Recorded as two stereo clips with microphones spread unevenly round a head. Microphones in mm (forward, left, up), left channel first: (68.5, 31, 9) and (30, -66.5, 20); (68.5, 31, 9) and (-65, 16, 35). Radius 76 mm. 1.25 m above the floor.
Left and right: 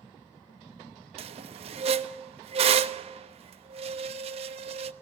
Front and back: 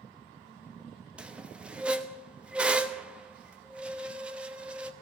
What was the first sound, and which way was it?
A squeak, 95° right.